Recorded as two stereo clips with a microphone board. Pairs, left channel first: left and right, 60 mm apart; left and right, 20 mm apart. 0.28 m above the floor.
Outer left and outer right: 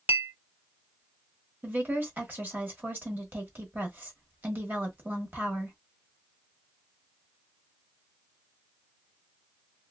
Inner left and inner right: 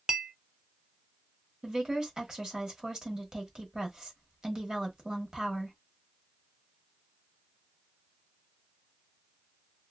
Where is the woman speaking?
35° right (ahead or behind), 1.1 m.